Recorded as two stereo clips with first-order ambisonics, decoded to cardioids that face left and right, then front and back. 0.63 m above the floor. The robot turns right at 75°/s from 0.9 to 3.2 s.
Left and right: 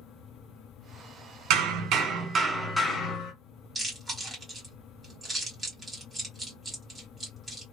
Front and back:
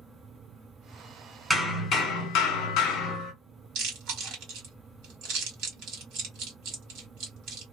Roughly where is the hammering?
Right.